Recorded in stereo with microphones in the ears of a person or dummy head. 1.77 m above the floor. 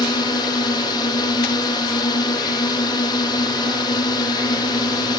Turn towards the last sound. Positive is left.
turn(degrees=25)  # may be behind; listen again after turning